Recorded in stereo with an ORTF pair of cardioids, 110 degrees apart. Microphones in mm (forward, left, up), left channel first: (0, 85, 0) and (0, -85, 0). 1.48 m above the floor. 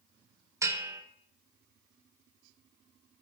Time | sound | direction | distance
0.6 | a bell | 15° right | 0.9 m